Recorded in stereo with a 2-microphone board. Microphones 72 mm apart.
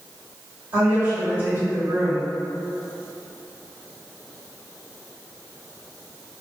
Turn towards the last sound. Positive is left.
turn(degrees=-30)  # may be behind; listen again after turning